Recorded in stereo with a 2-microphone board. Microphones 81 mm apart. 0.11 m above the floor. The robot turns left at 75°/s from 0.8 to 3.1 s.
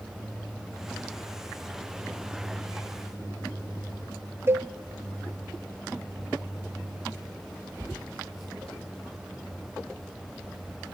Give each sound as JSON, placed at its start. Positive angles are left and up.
{"t": 4.5, "sound": "a cowbell", "side_deg": -30, "distance_m": 0.6}